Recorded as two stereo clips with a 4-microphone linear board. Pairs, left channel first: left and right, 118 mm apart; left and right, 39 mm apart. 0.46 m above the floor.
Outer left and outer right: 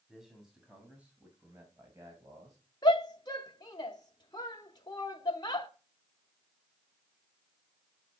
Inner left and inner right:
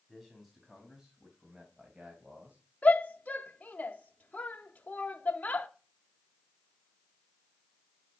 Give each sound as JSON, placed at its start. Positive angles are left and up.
{"t": 0.1, "sound": "a man speaking", "side_deg": 0, "distance_m": 3.0}
{"t": 2.8, "sound": "a shout", "side_deg": 35, "distance_m": 0.9}